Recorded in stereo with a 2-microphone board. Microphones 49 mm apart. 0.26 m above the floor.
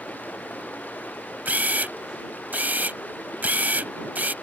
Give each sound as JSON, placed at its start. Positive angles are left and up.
{"t": 0.0, "sound": "running water", "side_deg": 40}
{"t": 1.4, "sound": "a camera shutter", "side_deg": -35}